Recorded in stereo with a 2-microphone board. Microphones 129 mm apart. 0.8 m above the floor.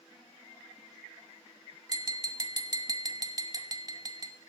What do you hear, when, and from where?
1.9 s tapping: 30° right (ahead or behind), 0.8 m